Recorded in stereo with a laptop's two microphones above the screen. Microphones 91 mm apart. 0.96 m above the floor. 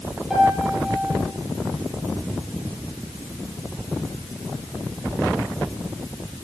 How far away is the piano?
About 8 m.